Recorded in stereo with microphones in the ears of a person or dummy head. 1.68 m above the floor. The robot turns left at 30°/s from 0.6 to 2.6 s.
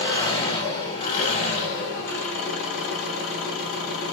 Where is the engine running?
145° left, 3.5 m; by 4.1 s 85° left, 3.5 m.